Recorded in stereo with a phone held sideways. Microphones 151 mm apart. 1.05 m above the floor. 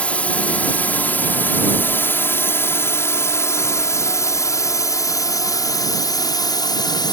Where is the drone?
10° left (ahead or behind); by 7.1 s 30° left (ahead or behind).